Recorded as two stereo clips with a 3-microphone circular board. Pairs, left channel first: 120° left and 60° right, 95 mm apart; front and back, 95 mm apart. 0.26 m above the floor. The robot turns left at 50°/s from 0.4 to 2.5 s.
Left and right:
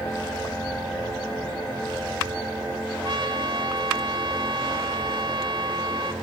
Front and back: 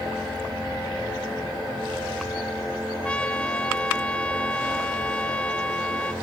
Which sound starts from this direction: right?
A trumpet, at 3.0 s.